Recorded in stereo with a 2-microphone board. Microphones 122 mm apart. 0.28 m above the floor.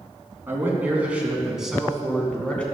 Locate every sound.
0.5 s a man speaking: 20° right (ahead or behind), 3 m; by 2.6 s 10° left (ahead or behind), 3 m